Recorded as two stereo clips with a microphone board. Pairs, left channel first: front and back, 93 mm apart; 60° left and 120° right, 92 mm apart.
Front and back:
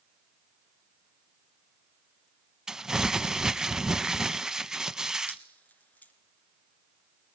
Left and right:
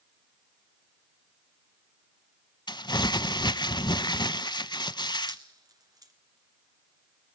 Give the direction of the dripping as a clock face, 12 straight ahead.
2 o'clock.